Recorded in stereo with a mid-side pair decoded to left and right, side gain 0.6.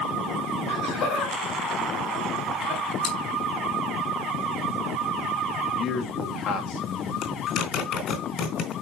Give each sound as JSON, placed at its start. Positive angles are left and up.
{"t": 0.7, "sound": "laughter", "azimuth_deg": 70, "distance_m": 4.5}
{"t": 3.0, "sound": "chewing", "azimuth_deg": 65, "distance_m": 4.0}
{"t": 5.8, "sound": "a man speaking", "azimuth_deg": 60, "distance_m": 2.5}
{"t": 7.2, "sound": "a zipper", "azimuth_deg": 60, "distance_m": 3.5}